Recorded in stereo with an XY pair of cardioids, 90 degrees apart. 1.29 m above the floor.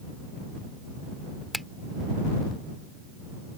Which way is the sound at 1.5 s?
5° left.